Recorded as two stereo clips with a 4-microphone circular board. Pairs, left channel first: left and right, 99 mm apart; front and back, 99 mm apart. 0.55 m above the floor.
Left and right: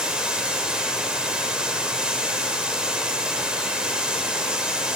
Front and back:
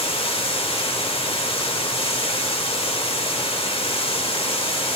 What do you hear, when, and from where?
0.0 s running water: 10° right, 1.3 m